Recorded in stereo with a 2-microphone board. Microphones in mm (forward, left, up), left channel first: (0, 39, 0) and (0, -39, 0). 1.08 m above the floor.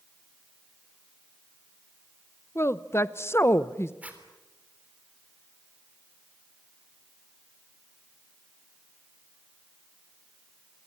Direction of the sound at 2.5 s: 35° left (ahead or behind).